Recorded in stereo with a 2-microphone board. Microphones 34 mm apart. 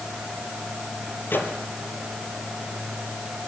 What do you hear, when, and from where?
1.3 s a microwave: 75° left (ahead or behind), 4 m